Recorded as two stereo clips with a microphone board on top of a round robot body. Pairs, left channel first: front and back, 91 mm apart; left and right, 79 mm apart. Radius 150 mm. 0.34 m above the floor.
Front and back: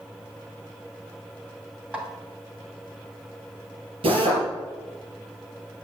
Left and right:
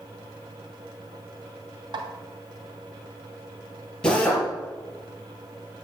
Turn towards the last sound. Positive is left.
turn(degrees=170)